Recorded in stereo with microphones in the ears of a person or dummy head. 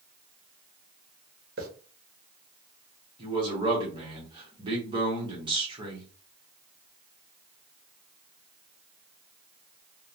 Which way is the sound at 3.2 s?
25° right (ahead or behind).